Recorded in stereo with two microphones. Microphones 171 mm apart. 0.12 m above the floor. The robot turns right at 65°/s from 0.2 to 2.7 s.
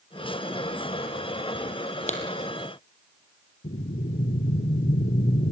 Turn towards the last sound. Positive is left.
turn(degrees=65)  # may be behind; listen again after turning